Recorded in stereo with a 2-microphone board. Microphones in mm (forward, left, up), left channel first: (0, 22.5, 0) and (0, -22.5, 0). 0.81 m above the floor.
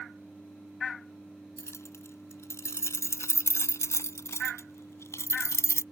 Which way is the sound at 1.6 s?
80° left.